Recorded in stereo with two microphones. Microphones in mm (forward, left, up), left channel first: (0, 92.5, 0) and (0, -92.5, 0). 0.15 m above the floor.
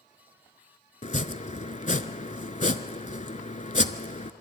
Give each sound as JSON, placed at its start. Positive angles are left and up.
{"t": 1.0, "sound": "chopping", "side_deg": 45, "distance_m": 0.7}